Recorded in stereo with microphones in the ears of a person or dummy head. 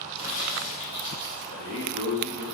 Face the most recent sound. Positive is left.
turn(degrees=-45)  # may be behind; listen again after turning